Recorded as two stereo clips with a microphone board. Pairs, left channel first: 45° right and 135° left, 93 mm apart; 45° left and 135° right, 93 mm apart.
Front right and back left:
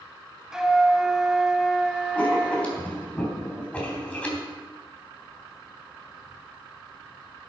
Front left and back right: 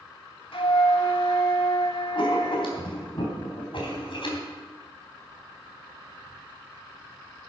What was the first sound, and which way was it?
A flute, 50° left.